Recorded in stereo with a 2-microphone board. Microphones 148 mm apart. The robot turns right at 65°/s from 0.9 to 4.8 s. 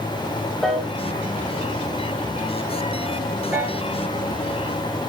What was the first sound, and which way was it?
A piano, 5° left (ahead or behind).